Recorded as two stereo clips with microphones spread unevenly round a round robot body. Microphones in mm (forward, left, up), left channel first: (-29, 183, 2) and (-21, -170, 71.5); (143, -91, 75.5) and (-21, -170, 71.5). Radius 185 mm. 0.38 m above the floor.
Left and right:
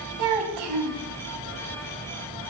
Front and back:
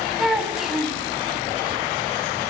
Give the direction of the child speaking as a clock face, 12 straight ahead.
2 o'clock.